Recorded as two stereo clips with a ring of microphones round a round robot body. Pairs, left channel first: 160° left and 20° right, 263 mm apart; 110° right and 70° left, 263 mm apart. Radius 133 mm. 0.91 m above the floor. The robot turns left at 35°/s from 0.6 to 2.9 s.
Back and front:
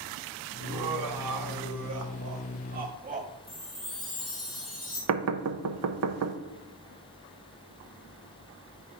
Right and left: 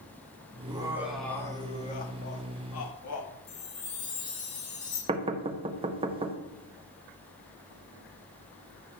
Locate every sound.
0.6 s laughter: 5° right, 1.4 m; by 3.3 s 85° right, 1.4 m
3.5 s a chime: 115° right, 3 m
5.1 s knocking: straight ahead, 0.7 m